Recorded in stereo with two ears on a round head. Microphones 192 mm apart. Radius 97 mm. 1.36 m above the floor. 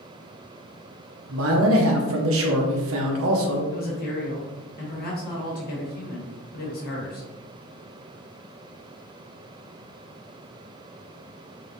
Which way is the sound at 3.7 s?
45° left (ahead or behind).